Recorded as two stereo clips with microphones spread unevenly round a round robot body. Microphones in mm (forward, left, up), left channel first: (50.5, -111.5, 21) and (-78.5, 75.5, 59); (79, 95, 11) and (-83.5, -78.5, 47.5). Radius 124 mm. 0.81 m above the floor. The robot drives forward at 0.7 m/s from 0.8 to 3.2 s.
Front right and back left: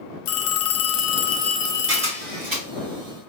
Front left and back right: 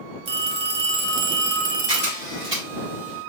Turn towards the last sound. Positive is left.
turn(degrees=160)